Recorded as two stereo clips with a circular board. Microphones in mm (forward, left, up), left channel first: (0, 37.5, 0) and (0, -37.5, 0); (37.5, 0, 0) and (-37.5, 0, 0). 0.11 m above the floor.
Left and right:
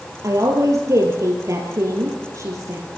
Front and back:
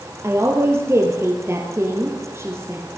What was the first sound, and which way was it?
A woman speaking, 130° right.